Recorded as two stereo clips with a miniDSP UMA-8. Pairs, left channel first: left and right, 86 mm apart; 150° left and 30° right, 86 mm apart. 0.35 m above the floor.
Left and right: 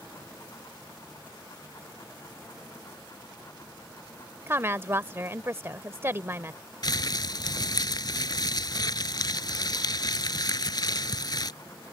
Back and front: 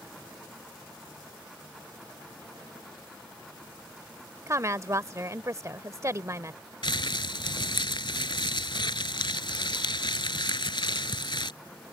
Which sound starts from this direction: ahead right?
A woman speaking, at 4.5 s.